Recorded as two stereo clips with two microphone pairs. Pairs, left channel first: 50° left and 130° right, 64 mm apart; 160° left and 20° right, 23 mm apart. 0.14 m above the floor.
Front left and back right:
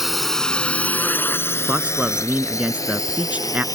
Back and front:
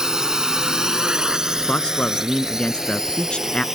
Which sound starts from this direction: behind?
A man speaking, at 1.7 s.